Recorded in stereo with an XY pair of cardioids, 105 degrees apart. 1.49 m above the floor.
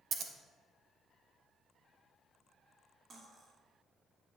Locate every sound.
0.1 s scissors: 60° right, 1.1 m
3.1 s cutlery clinking: 40° right, 2 m